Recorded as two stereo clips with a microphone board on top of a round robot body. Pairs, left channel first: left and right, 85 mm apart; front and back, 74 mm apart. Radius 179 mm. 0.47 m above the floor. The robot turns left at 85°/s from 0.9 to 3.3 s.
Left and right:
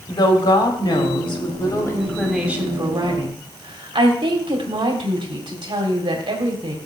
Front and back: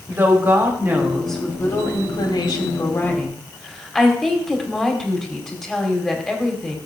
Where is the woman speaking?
120° left, 3 m; by 6.8 s 85° right, 3 m.